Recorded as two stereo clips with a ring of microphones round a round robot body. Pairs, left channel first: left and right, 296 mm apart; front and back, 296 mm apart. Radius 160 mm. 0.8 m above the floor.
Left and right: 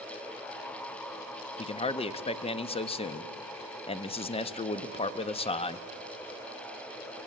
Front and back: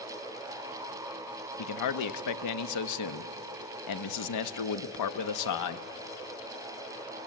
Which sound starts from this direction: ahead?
A man speaking, at 1.6 s.